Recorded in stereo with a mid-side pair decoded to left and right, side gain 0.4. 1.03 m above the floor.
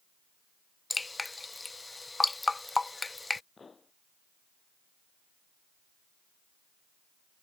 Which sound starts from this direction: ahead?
Dripping, at 0.9 s.